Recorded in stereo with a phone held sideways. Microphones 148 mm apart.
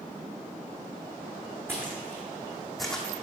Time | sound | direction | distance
1.7 | footsteps | 15° right (ahead or behind) | 2.5 m